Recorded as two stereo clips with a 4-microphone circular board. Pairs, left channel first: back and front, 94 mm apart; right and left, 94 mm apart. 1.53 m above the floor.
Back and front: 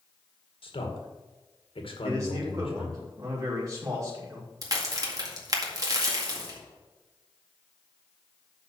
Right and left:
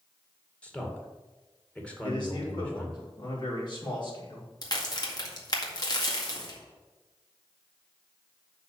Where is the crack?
50° right, 1.9 m.